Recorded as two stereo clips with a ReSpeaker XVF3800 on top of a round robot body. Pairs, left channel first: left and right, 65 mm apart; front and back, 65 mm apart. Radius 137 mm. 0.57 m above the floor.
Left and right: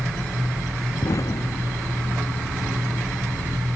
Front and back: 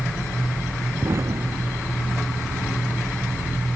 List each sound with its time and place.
1.0 s an explosion: 130° left